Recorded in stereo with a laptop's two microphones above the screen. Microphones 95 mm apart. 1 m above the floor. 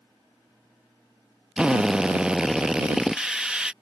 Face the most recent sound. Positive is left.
turn(degrees=-10)  # may be behind; listen again after turning